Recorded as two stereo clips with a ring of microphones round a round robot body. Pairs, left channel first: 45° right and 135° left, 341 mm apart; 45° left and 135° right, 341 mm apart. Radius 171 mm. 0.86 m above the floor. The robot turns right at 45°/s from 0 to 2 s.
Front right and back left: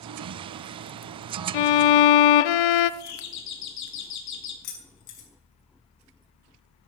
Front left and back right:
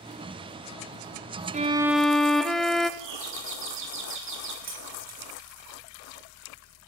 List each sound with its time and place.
1.5 s a violin: 65° right, 0.8 m; by 2.9 s 45° right, 0.8 m
3.0 s a doorbell: 85° right, 3 m
4.6 s keys jangling: 70° right, 5.5 m